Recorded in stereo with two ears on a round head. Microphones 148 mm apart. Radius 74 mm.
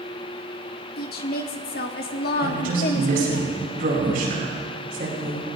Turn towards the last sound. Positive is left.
turn(degrees=-60)  # may be behind; listen again after turning